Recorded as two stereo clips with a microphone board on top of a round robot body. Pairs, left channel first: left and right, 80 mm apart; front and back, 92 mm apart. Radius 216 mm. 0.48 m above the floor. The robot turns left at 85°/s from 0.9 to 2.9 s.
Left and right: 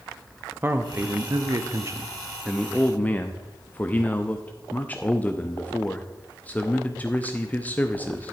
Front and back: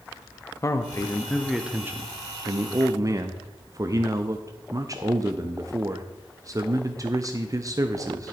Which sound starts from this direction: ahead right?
A man speaking, at 0.6 s.